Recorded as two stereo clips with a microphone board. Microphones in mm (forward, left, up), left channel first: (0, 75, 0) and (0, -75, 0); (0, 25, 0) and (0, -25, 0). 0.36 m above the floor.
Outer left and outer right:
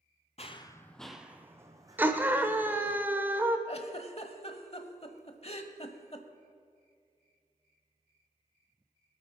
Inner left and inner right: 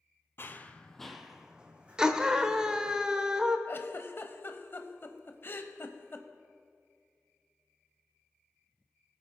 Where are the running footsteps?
45° left (ahead or behind), 0.7 m; by 3.0 s 35° right (ahead or behind), 2.5 m.